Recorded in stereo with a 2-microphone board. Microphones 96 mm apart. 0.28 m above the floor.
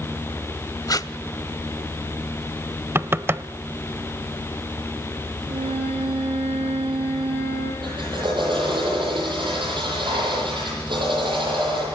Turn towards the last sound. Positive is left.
turn(degrees=-55)  # may be behind; listen again after turning